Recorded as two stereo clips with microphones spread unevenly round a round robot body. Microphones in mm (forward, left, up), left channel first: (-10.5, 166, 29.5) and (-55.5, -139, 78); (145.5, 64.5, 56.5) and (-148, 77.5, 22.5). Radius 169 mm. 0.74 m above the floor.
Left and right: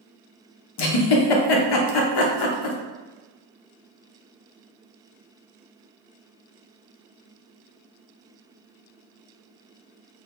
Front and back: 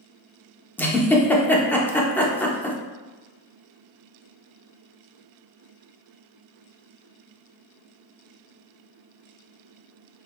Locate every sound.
0.8 s a giggle: 80° left, 0.8 m